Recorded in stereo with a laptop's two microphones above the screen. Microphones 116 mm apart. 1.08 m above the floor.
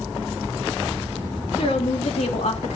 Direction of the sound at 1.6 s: 65° left (ahead or behind).